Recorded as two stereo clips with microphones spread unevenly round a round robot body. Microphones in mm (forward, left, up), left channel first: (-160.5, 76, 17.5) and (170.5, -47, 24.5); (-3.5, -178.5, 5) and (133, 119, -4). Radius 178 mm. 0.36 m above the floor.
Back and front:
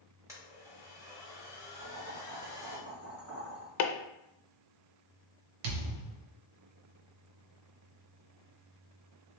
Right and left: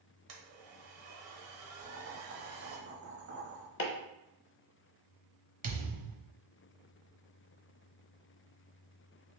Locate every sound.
0.3 s a blender: 60° left, 1.2 m
1.8 s boiling: 25° left, 1.4 m
3.8 s chopping: 170° right, 0.5 m
5.6 s a thud: straight ahead, 1.0 m